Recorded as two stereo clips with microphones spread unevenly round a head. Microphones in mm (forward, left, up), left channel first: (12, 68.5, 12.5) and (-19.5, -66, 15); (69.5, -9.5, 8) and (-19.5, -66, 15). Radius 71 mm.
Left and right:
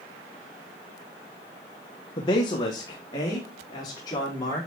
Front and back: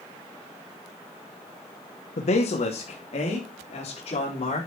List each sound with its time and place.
2.2 s a man speaking: 20° left, 1.3 m; by 4.7 s 10° left, 4.5 m